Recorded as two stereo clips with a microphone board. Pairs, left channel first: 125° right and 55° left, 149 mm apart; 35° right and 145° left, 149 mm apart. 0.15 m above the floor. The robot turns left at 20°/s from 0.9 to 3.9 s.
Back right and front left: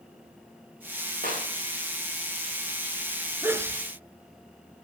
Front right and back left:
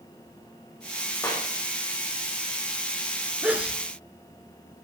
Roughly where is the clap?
Ahead left.